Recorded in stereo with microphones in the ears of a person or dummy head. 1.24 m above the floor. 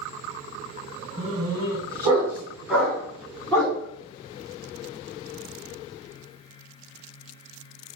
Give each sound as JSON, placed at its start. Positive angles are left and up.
{"t": 1.2, "sound": "a dog barking", "side_deg": -30, "distance_m": 4.0}